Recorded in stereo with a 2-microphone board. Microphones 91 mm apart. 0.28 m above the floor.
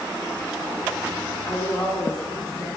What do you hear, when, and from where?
1.5 s a woman speaking: 10° left (ahead or behind), 4 m